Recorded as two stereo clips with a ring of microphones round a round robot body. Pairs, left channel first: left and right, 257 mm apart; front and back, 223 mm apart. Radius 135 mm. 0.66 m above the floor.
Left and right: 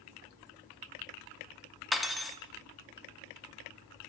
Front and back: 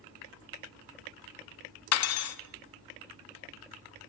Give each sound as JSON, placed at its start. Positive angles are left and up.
{"t": 1.9, "sound": "cutlery clinking", "azimuth_deg": 0, "distance_m": 0.5}